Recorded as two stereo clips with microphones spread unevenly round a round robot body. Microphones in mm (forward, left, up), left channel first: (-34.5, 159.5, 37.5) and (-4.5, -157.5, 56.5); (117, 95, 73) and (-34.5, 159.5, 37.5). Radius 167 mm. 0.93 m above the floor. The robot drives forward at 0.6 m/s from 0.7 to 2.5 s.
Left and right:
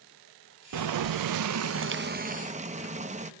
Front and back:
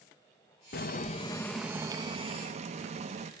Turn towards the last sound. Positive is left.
turn(degrees=-155)